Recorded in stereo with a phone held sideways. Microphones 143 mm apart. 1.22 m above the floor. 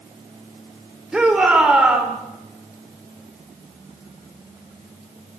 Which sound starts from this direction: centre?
A shout, at 1.1 s.